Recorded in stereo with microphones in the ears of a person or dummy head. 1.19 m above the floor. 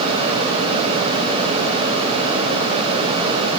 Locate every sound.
Only background noise.